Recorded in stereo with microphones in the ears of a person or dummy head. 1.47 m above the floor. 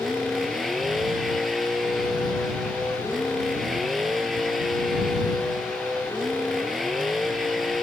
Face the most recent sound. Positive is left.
turn(degrees=0)  # may be behind; listen again after turning